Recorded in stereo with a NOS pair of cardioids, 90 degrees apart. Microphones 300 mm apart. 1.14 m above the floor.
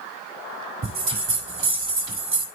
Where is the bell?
40° right, 6 m.